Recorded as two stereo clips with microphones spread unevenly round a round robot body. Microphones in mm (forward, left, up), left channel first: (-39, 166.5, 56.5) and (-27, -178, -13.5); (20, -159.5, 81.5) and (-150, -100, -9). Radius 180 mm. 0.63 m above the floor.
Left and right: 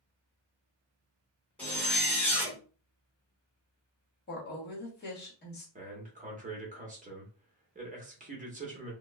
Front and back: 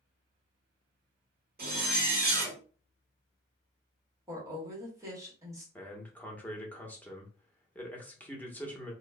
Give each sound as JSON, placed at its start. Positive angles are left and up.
{"t": 1.6, "sound": "a zipper", "azimuth_deg": 180, "distance_m": 1.0}
{"t": 4.3, "sound": "a woman speaking", "azimuth_deg": 155, "distance_m": 1.2}
{"t": 5.8, "sound": "a man speaking", "azimuth_deg": -130, "distance_m": 1.0}